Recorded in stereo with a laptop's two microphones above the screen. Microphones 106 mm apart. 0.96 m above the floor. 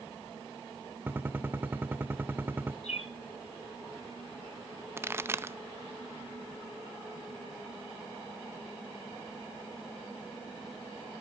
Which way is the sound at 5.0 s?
25° right (ahead or behind).